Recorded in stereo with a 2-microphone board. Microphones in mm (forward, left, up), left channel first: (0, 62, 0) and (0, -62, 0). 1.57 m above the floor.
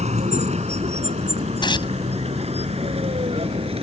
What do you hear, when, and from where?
0.0 s a vehicle: 75° right (ahead or behind); by 3.8 s 60° right (ahead or behind)
1.6 s tearing paper: 40° left (ahead or behind)